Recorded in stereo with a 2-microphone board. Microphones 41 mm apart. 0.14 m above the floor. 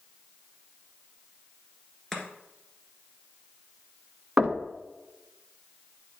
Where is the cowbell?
I don't hear a cowbell.